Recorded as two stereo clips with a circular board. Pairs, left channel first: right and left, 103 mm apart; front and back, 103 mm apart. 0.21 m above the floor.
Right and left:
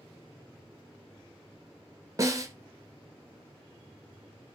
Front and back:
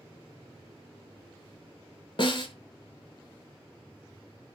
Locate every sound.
2.2 s a snare drum: 35° left, 0.5 m